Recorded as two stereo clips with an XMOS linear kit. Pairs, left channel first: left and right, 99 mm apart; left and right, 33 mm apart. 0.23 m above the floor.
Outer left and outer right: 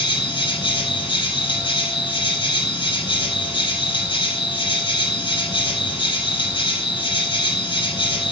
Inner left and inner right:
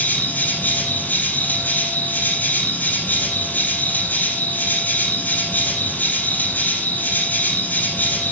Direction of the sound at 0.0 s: 50° left (ahead or behind).